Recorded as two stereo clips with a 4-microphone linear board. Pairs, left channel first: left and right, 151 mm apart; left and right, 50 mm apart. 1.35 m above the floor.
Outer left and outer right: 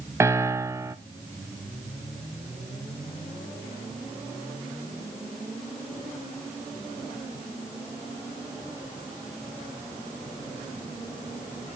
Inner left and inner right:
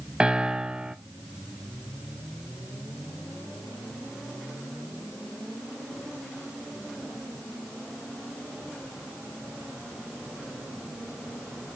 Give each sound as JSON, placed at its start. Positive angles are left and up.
{"t": 0.2, "sound": "a piano", "side_deg": -15, "distance_m": 0.5}